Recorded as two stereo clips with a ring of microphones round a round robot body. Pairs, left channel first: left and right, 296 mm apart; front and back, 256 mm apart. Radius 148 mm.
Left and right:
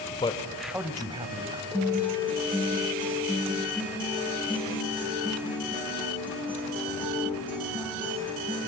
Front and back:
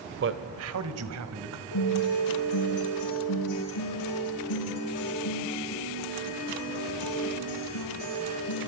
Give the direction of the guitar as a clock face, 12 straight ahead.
12 o'clock.